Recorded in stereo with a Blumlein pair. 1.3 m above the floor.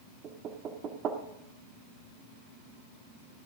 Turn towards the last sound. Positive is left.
turn(degrees=-30)